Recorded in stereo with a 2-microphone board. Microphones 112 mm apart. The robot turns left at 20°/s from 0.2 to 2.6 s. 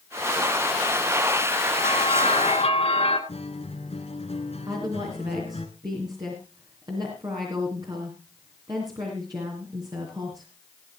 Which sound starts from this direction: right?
A woman speaking, at 4.7 s.